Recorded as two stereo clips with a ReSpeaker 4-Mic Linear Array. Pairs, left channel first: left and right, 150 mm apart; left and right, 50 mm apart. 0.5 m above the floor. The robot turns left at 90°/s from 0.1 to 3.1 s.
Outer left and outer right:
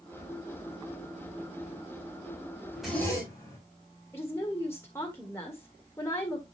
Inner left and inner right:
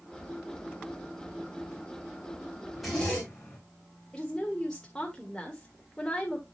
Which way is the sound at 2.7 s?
170° right.